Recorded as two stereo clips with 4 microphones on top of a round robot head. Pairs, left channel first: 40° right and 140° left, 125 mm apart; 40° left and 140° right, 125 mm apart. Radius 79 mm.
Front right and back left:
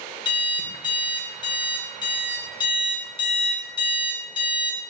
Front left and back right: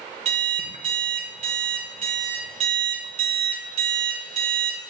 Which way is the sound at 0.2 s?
95° right.